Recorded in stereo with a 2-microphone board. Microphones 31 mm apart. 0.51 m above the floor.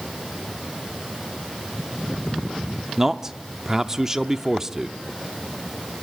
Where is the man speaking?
15° right (ahead or behind), 0.7 m.